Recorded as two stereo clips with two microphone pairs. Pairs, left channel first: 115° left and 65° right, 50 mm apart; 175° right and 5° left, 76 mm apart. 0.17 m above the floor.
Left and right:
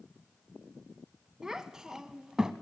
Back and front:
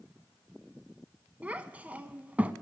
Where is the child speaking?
5° right, 0.6 m.